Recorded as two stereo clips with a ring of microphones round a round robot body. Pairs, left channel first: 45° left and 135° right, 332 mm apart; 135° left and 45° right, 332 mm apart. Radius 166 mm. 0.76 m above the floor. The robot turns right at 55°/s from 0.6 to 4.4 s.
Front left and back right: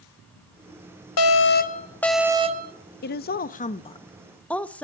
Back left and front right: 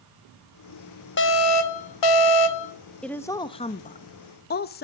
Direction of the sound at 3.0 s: 50° left.